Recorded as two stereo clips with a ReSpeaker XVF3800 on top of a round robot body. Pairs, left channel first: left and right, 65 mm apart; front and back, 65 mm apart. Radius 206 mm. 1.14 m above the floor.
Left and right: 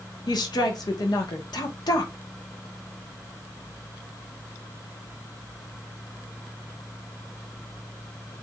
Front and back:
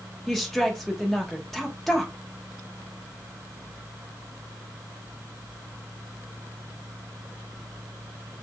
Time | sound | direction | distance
0.3 | a woman speaking | 85° left | 1.0 m